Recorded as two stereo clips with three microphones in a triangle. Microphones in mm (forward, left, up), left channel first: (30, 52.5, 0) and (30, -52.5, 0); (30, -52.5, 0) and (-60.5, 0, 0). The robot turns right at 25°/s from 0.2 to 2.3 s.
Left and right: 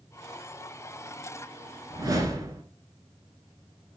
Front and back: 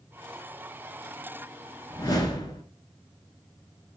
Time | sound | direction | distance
1.9 | a whoosh | 65° right | 0.7 m